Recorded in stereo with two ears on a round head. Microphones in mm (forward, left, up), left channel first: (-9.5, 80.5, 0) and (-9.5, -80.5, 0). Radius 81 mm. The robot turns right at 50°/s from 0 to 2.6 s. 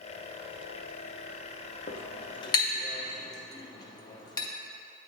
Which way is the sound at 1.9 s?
45° left (ahead or behind).